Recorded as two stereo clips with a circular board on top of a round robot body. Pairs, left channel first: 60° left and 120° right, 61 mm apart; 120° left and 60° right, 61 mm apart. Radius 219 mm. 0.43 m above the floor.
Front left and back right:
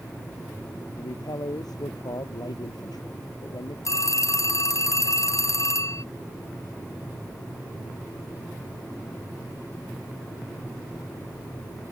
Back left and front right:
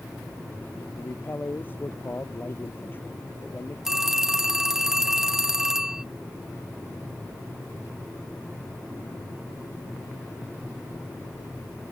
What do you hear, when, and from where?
1.0 s a man speaking: 60° left
3.9 s a phone ringing: 20° left